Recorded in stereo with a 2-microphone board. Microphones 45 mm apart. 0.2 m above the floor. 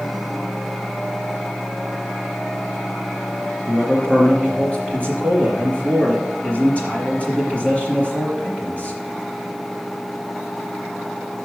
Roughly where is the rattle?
No rattle in this recording.